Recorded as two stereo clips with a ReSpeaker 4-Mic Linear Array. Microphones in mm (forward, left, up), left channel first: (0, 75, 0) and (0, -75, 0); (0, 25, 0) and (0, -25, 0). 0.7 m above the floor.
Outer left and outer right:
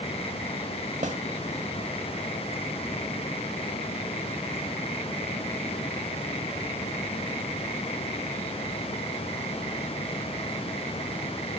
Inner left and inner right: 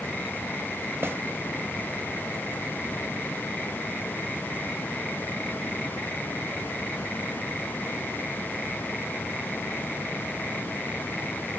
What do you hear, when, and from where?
1.0 s a snare drum: 55° right (ahead or behind), 1.6 m